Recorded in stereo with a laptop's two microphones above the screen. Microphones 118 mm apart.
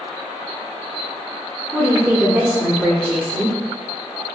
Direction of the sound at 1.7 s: 20° right (ahead or behind).